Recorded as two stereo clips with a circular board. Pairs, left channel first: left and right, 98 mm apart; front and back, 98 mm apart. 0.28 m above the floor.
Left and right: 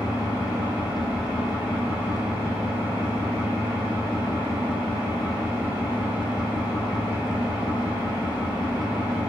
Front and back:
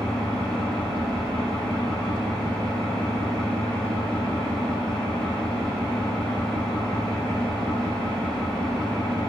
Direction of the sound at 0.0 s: 65° right.